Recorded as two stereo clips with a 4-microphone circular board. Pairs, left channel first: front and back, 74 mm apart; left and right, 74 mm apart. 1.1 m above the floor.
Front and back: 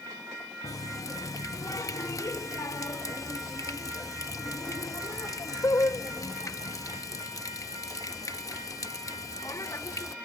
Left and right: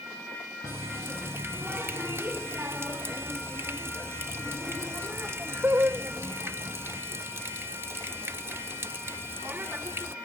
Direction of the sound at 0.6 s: 35° right.